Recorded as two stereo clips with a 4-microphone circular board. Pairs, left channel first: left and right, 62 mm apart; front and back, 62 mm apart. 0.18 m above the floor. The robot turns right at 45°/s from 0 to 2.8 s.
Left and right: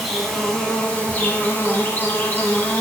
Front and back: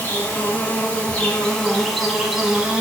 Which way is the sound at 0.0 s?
Straight ahead.